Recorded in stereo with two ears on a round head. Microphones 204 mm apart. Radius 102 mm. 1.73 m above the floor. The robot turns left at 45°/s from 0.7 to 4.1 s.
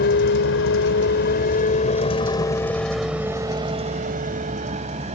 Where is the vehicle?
50° left (ahead or behind); by 5.2 s 30° right (ahead or behind).